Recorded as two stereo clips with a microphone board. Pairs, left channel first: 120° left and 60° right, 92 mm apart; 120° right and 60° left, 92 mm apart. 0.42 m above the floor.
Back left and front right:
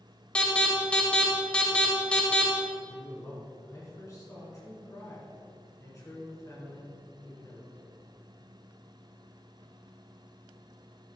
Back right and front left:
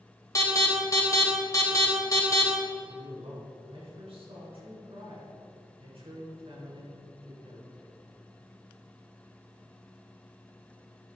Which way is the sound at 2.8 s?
65° left.